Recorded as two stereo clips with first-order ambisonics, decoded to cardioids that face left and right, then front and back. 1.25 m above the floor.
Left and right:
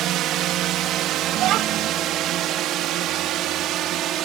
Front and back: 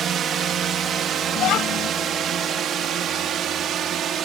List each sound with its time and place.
0.0 s a drone: 130° right
1.4 s a child speaking: 45° right